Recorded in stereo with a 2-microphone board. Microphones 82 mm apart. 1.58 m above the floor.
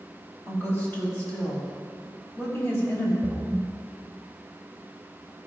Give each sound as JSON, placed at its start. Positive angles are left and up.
{"t": 0.5, "sound": "a woman speaking", "side_deg": 30, "distance_m": 3.5}
{"t": 3.2, "sound": "a splash", "side_deg": -20, "distance_m": 0.7}